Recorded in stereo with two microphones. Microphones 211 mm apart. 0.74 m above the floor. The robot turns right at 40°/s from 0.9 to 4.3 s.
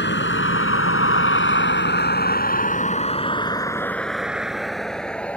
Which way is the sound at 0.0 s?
55° left (ahead or behind).